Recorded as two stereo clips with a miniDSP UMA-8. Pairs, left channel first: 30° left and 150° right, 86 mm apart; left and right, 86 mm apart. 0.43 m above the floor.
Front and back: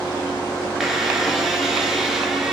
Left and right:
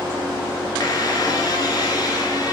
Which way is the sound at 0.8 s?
125° left.